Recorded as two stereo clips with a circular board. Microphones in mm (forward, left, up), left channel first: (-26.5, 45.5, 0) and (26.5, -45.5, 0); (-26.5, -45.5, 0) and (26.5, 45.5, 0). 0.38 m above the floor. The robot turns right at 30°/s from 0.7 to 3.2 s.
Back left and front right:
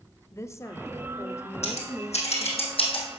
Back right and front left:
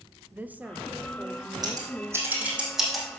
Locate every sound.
0.3 s a woman speaking: 115° left, 0.9 m; by 2.6 s 170° left, 0.9 m
1.6 s scissors: 110° left, 3 m; by 3.2 s 160° left, 3 m